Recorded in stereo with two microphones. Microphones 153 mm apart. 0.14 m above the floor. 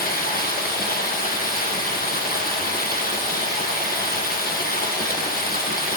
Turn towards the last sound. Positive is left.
turn(degrees=80)